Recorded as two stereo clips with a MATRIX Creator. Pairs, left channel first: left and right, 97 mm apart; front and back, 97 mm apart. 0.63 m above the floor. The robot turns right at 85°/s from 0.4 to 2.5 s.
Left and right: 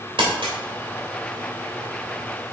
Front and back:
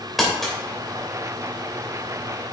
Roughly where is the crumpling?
Right.